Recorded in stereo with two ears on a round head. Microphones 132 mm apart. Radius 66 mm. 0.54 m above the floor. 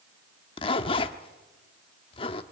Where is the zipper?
40° left (ahead or behind), 0.9 m.